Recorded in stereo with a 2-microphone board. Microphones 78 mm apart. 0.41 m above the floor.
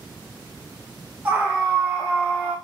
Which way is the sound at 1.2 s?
25° right (ahead or behind).